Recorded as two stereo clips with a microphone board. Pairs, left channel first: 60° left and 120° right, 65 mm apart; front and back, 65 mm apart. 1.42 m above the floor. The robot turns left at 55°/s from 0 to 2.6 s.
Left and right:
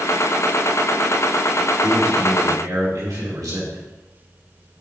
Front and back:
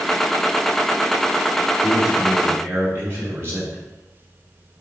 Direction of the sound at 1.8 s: 90° right.